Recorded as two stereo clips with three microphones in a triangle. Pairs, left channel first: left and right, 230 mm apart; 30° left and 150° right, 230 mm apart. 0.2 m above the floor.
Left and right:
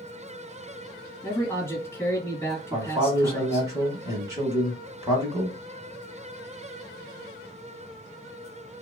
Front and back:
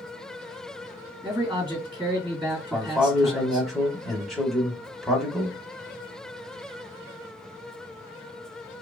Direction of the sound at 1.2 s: 160° left.